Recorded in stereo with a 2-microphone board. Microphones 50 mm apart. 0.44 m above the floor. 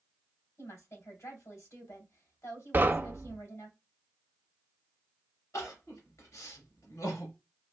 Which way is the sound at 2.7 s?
35° right (ahead or behind).